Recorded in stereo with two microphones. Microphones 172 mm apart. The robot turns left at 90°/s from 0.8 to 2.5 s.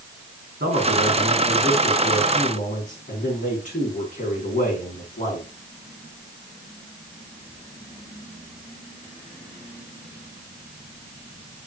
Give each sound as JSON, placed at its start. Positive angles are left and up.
{"t": 0.6, "sound": "a man speaking", "azimuth_deg": -80, "distance_m": 5.0}